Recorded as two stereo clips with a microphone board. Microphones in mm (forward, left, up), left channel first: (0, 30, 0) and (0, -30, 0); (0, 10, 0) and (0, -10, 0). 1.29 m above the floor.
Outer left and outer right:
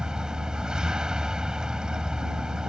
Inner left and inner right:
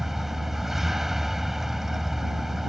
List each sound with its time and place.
0.0 s a vehicle: 15° right (ahead or behind)